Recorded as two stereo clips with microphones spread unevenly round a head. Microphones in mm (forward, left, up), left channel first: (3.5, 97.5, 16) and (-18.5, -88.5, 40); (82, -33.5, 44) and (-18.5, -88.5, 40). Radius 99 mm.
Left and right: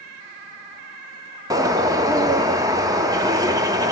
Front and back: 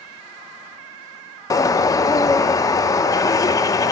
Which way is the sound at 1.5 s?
30° right.